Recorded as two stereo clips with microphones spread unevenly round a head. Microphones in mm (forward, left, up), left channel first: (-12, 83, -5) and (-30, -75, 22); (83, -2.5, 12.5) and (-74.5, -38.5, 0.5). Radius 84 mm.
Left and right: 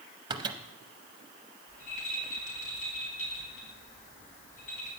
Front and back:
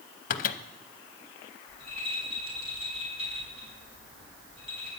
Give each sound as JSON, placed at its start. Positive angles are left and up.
{"t": 0.3, "sound": "a microwave", "azimuth_deg": -30, "distance_m": 0.6}
{"t": 1.7, "sound": "a rattle", "azimuth_deg": 130, "distance_m": 4.5}